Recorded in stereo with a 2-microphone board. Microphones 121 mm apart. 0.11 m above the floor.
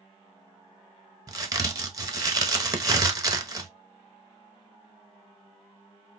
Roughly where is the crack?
Right.